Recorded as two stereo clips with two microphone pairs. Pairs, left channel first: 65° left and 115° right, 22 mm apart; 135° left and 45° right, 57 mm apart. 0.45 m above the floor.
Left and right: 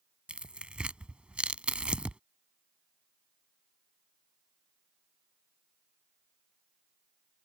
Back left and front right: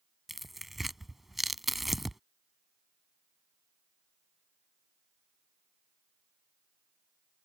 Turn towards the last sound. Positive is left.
turn(degrees=-135)